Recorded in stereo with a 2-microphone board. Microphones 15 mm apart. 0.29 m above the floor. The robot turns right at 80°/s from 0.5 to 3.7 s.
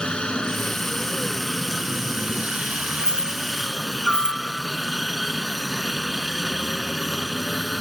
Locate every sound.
0.0 s a helicopter: 95° left; by 7.8 s 5° right
3.0 s keys jangling: 45° left (ahead or behind); by 4.4 s 65° left (ahead or behind)